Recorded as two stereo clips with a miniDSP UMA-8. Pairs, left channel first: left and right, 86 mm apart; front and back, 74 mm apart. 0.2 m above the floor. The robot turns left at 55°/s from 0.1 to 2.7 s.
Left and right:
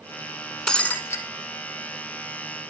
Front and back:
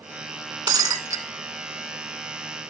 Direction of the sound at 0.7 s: 170° left.